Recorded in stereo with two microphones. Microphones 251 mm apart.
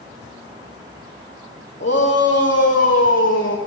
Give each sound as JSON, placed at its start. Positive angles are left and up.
{"t": 1.8, "sound": "a shout", "side_deg": 45, "distance_m": 8.0}